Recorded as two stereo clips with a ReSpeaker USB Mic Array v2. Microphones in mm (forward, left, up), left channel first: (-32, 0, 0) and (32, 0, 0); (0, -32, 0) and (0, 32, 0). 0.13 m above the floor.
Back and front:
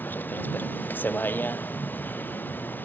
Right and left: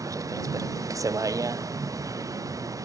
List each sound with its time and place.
0.0 s a vehicle: 120° left